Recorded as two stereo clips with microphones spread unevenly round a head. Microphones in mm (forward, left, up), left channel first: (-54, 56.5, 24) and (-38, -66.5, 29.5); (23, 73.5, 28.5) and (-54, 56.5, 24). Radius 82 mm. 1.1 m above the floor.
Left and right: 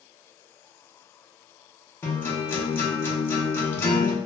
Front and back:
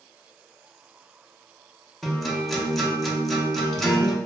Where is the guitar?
110° left, 0.6 m.